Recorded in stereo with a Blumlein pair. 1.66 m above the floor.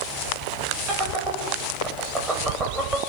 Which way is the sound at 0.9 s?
20° right.